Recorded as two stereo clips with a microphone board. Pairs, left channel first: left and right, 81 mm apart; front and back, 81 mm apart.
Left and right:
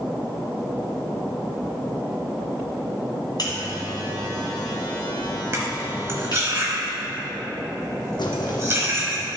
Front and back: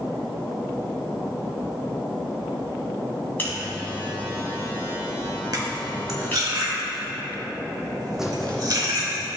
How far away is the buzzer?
About 1.9 m.